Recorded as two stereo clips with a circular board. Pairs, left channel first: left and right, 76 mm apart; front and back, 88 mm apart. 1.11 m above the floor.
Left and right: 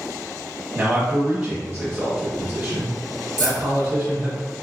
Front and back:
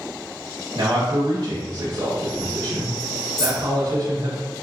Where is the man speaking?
165° right, 1.2 m.